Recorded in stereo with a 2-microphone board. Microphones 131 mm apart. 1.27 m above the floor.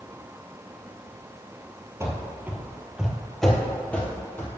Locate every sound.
2.0 s running footsteps: 20° right (ahead or behind), 1.3 m; by 4.6 s 15° left (ahead or behind), 1.8 m